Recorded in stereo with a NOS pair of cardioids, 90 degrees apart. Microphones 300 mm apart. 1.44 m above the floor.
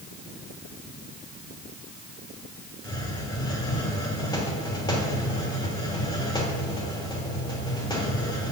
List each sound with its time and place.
2.8 s a hiss: 15° left, 3 m